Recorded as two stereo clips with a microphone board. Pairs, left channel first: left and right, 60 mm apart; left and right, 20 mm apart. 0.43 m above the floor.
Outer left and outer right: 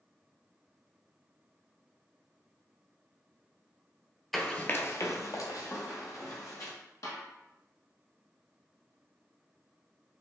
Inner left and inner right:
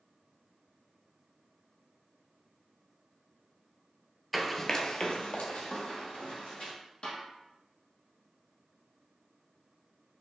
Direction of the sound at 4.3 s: Centre (ahead or behind).